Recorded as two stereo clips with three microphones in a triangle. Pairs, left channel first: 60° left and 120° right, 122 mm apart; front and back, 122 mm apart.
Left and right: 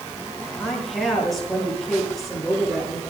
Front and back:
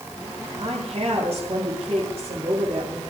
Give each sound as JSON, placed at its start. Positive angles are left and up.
{"t": 0.6, "sound": "a woman speaking", "azimuth_deg": 150, "distance_m": 7.5}